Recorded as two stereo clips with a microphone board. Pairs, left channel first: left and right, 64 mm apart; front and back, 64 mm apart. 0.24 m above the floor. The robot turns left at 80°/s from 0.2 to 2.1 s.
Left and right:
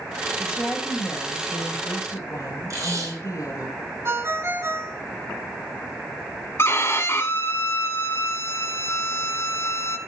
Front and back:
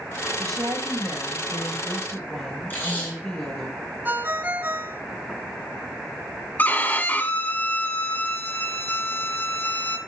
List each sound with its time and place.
0.4 s a woman speaking: 160° right, 5 m; by 3.7 s 60° left, 5 m
2.7 s tape being pulled: 60° right, 5 m
4.0 s a ringtone: 125° right, 1.2 m
6.6 s a violin: 55° left, 1.0 m